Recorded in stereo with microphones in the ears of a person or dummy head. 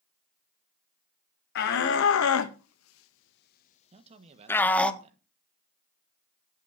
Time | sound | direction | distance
1.6 | a shout | 60° left (ahead or behind) | 1.5 m
3.9 | a man speaking | 35° right (ahead or behind) | 1.5 m